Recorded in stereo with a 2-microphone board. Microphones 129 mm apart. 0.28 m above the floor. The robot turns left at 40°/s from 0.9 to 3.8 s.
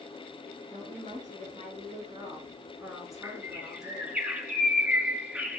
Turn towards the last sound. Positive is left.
turn(degrees=-10)  # may be behind; listen again after turning